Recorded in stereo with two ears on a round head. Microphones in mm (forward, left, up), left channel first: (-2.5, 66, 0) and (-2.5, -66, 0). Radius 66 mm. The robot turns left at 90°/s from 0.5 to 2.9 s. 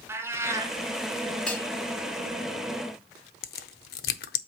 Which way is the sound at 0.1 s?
20° right (ahead or behind).